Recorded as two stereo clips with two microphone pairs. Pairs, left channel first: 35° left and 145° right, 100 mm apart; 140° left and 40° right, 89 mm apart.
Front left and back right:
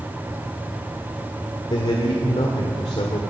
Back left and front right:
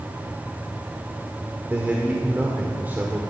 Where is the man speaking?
30° left, 1.7 m.